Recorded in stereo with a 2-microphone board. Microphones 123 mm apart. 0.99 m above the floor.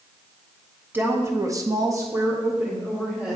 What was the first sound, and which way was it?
A woman speaking, 15° right (ahead or behind).